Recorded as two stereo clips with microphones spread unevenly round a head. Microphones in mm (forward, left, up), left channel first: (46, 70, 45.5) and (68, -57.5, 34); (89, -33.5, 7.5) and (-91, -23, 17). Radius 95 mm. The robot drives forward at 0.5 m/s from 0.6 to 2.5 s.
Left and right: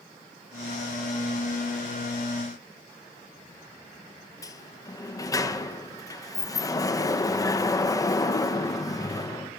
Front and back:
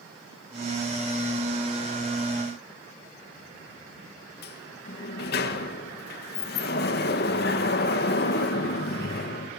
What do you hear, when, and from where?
4.4 s a sliding door: 35° left, 1.9 m